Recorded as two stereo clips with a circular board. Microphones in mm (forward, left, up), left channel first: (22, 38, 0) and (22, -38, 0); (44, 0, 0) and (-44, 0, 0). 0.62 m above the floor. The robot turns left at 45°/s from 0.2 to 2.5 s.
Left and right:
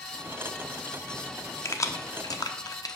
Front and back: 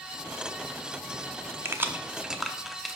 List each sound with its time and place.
1.6 s keys jangling: 130° left, 0.6 m; by 3.0 s 90° left, 0.6 m